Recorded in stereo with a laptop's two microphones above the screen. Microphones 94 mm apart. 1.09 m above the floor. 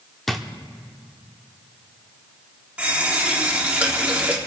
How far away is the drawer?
About 0.7 m.